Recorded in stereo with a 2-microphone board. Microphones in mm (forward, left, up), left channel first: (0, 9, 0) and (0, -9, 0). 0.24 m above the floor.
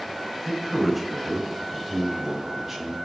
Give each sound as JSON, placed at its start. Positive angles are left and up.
{"t": 0.5, "sound": "a man speaking", "side_deg": -5, "distance_m": 1.7}